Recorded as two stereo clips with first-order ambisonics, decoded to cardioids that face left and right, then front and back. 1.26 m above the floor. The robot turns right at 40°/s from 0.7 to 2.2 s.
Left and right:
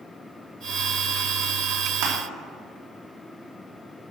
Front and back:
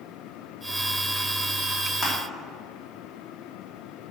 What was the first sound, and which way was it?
Crushing, 70° right.